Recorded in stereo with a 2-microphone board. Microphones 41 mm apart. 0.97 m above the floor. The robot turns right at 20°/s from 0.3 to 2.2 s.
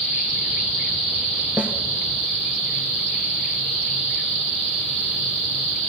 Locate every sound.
1.6 s a snare drum: 40° right (ahead or behind), 1.8 m